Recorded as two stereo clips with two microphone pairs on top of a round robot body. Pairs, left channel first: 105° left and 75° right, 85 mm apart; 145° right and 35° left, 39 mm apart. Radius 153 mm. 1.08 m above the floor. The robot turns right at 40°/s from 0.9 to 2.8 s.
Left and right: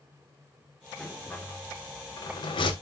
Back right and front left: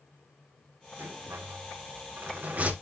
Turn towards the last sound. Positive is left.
turn(degrees=85)